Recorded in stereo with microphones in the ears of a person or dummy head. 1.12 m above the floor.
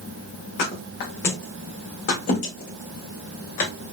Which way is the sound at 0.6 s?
45° left (ahead or behind).